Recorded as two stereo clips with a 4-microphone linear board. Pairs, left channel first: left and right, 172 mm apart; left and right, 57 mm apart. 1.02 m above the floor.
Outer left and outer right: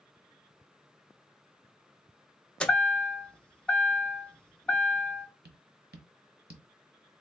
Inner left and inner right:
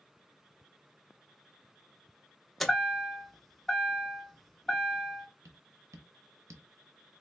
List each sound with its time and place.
2.6 s a chime: 5° left (ahead or behind), 0.6 m
5.5 s tapping: 70° right (ahead or behind), 0.7 m